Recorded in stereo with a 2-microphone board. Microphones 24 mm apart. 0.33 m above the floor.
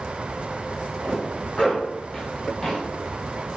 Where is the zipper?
35° left (ahead or behind), 1.6 m.